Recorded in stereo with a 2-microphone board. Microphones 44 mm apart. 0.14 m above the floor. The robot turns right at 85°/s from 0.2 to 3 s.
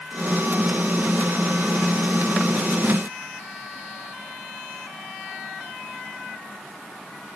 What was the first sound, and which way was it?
Only background noise.